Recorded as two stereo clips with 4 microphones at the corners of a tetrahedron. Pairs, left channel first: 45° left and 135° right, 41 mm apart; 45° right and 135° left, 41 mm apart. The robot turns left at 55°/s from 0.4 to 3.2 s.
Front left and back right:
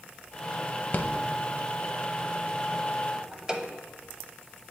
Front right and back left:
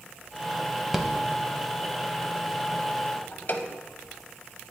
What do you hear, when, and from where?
0.9 s a rattle: 55° left, 0.5 m; by 3.7 s 65° right, 0.5 m